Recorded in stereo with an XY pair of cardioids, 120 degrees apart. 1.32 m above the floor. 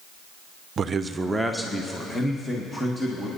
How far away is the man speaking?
About 0.6 m.